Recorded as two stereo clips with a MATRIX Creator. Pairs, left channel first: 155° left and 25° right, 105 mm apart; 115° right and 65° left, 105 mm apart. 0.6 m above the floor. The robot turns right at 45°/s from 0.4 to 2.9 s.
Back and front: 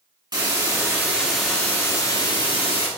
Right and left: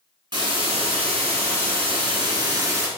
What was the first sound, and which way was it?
A hiss, 20° left.